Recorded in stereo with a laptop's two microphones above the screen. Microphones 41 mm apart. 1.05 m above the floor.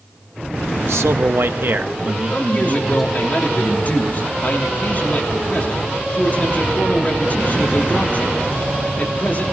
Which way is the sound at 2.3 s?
40° left (ahead or behind).